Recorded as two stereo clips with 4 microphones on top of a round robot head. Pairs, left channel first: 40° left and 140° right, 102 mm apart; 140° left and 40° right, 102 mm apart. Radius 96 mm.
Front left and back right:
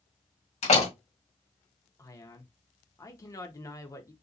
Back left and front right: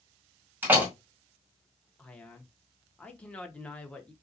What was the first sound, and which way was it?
A door slam, 35° left.